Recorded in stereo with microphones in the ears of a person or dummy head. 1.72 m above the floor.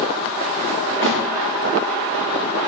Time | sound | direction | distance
1.0 | a snare drum | 75° left (ahead or behind) | 4 m